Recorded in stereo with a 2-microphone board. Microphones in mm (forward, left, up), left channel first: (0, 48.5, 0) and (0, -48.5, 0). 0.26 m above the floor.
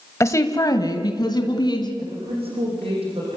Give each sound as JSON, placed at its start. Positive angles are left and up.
{"t": 0.2, "sound": "a woman speaking", "side_deg": 30, "distance_m": 1.1}
{"t": 2.0, "sound": "a woman speaking", "side_deg": -80, "distance_m": 9.5}